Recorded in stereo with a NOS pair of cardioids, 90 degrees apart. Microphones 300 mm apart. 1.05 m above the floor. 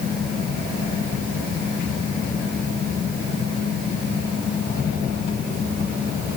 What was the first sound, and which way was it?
Only background noise.